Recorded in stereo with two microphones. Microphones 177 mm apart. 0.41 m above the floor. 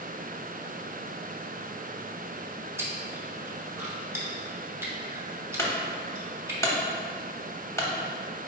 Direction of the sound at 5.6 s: 15° left (ahead or behind).